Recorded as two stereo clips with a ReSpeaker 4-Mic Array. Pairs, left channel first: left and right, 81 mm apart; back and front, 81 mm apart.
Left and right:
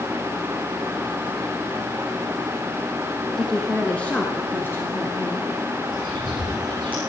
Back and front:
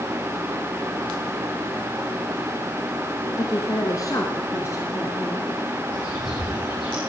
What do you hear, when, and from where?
3.4 s a woman speaking: 175° left, 1.6 m; by 5.5 s 140° left, 2.5 m
5.9 s a bird: 160° left, 5.5 m